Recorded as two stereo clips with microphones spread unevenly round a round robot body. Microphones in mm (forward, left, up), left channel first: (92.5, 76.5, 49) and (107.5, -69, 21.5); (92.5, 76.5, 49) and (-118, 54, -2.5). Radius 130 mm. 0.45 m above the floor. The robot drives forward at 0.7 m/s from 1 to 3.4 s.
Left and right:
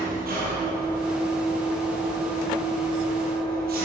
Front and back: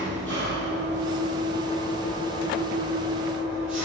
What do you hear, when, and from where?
0.0 s an engine running: 75° right, 9.5 m; by 3.9 s 85° right, 9 m